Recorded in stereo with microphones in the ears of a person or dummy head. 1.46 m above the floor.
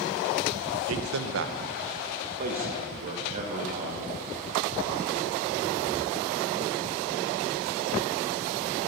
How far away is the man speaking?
About 1.0 m.